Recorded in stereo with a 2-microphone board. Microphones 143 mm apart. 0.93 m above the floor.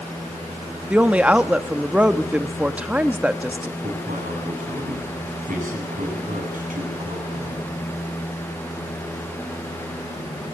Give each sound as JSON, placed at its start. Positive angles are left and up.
{"t": 0.9, "sound": "a woman speaking", "side_deg": -10, "distance_m": 1.2}
{"t": 3.8, "sound": "a man speaking", "side_deg": -70, "distance_m": 9.0}